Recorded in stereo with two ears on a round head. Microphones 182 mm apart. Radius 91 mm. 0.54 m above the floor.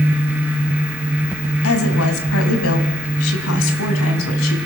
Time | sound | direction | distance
1.6 | a woman speaking | 75° left (ahead or behind) | 3.5 m